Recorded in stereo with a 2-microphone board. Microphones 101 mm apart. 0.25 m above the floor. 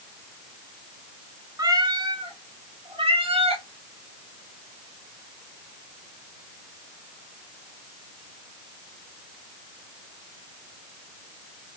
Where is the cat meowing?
35° right (ahead or behind), 0.7 m; by 3.6 s 80° right, 1.4 m.